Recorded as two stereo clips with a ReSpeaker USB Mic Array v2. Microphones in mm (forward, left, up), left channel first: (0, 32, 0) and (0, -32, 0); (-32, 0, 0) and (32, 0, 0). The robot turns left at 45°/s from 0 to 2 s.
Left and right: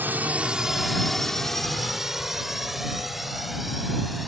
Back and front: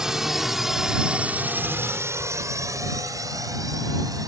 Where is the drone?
70° right; by 4.3 s straight ahead.